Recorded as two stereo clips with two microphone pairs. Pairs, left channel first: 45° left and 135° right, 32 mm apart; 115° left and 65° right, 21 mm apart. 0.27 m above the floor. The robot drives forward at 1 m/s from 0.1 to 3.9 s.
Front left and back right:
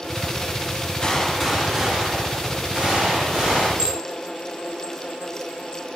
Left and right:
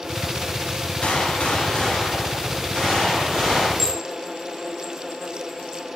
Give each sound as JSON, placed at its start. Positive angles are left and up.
{"t": 1.0, "sound": "a gunshot", "azimuth_deg": 105, "distance_m": 0.5}
{"t": 3.8, "sound": "dishes clattering", "azimuth_deg": 175, "distance_m": 0.8}